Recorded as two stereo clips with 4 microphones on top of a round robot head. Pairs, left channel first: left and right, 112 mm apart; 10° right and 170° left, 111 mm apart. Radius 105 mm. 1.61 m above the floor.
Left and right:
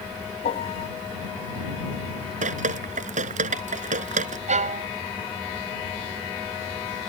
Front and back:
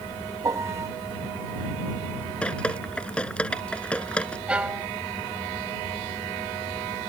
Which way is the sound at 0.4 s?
110° left.